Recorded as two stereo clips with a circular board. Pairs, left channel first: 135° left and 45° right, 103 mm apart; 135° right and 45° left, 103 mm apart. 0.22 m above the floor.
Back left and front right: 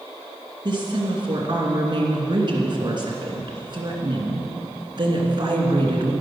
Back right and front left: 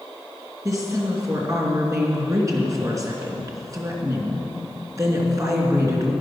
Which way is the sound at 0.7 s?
10° right.